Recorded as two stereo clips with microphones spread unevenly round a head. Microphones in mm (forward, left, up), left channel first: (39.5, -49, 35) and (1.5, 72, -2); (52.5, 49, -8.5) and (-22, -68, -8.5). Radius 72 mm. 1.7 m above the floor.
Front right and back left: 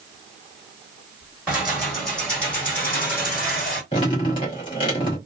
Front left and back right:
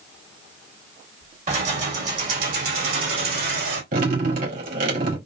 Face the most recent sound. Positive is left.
turn(degrees=-120)